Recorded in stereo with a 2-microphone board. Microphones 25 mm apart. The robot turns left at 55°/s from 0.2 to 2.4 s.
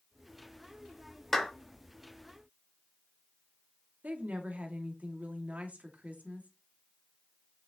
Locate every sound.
1.3 s a clap: 5° left (ahead or behind), 4 m; by 1.5 s 15° left (ahead or behind), 4 m
4.0 s a woman speaking: 80° right, 2 m